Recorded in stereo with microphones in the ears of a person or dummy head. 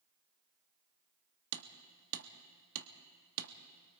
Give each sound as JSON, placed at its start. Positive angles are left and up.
{"t": 1.5, "sound": "hammering", "side_deg": -80, "distance_m": 1.4}